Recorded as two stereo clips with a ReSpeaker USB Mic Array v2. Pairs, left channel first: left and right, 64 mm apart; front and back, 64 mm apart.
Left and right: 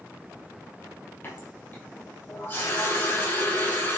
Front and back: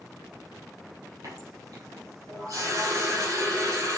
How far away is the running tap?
About 4 m.